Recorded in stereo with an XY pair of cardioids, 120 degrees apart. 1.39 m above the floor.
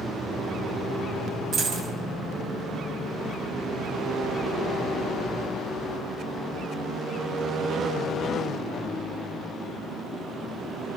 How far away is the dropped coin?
About 6 m.